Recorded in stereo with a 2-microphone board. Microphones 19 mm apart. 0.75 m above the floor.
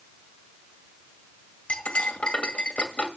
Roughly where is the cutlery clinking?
Left.